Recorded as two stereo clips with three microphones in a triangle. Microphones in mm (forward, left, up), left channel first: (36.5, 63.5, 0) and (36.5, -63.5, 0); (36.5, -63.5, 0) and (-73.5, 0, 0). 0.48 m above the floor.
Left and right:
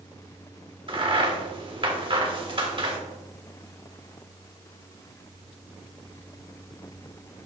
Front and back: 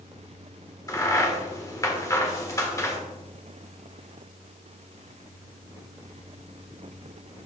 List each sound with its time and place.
0.9 s a crack: 80° right, 1.5 m